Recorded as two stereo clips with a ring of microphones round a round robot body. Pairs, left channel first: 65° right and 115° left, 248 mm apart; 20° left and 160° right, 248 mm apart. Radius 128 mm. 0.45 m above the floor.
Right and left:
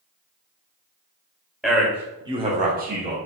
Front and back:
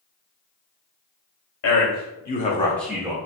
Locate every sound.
1.6 s a man speaking: 25° left, 1.9 m; by 3.2 s 135° left, 1.3 m